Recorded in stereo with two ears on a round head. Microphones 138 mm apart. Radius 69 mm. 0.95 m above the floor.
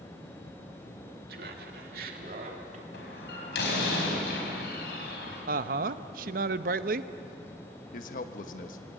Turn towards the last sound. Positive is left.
turn(degrees=55)  # may be behind; listen again after turning